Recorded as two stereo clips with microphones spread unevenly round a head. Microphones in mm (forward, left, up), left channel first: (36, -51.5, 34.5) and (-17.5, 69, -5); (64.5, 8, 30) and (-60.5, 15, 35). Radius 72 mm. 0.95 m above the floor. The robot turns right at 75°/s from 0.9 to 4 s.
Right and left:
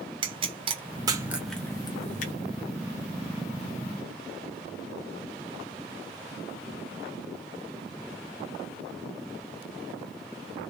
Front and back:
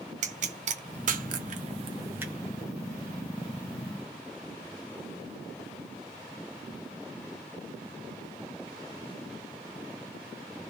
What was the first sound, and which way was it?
A pop, 155° left.